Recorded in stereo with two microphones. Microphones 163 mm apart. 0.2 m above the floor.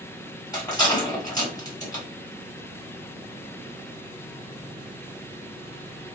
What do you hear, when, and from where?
0.5 s a rattle: 25° left (ahead or behind), 1.7 m